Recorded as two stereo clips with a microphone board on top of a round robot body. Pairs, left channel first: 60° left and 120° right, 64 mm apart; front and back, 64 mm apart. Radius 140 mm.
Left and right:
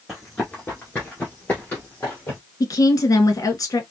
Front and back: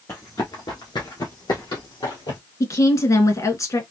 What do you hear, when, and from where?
0.1 s running footsteps: 35° right, 1.0 m; by 2.4 s 5° right, 2 m
2.6 s a woman speaking: 30° left, 1.6 m